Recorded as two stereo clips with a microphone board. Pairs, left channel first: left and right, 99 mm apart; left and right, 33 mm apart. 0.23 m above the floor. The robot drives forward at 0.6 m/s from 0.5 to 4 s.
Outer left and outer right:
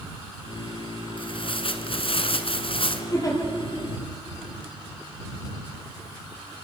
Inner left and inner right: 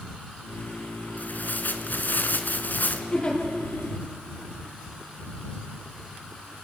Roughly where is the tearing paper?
Left.